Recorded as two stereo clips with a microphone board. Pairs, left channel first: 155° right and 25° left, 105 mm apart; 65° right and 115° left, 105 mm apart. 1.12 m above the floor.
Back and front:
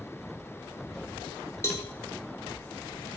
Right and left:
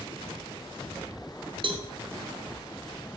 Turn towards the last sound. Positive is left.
turn(degrees=140)